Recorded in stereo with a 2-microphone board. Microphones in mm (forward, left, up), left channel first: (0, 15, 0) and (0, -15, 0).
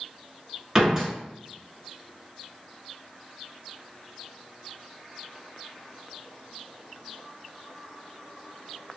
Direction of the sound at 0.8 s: 20° right (ahead or behind).